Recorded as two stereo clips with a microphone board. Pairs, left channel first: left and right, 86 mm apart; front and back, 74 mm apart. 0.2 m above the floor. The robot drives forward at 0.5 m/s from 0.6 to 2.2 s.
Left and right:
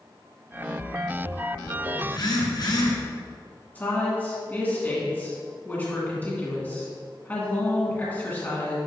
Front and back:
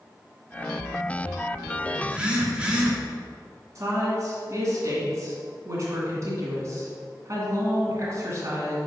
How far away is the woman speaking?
About 2.5 m.